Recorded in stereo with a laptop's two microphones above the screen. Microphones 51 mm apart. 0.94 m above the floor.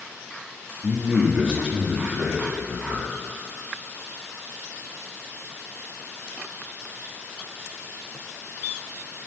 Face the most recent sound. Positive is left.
turn(degrees=-40)  # may be behind; listen again after turning